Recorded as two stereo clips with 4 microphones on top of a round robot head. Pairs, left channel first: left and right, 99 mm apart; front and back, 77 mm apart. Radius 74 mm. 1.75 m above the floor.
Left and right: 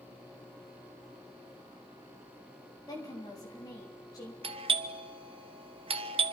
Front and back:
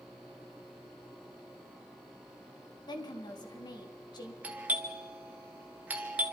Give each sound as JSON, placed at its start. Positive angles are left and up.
{"t": 2.9, "sound": "a woman speaking", "azimuth_deg": 30, "distance_m": 3.5}
{"t": 4.4, "sound": "a doorbell", "azimuth_deg": -105, "distance_m": 1.4}